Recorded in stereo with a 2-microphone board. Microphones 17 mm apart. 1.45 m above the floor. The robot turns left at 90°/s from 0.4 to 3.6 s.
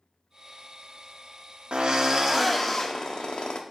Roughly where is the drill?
Right.